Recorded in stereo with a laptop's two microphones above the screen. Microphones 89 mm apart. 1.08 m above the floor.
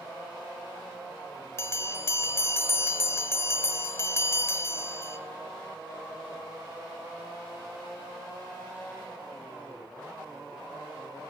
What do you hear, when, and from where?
1.6 s a bell: 30° left (ahead or behind), 1.5 m